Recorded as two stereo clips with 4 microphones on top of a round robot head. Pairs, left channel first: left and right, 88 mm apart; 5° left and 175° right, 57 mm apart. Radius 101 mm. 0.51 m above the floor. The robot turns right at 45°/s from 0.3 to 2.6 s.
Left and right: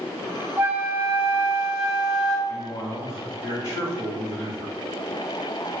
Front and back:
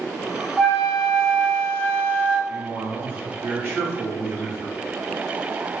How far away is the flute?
About 1.3 m.